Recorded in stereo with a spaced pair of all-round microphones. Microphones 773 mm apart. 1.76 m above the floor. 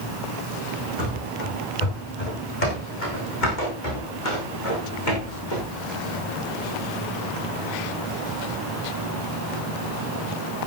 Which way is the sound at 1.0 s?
65° left (ahead or behind).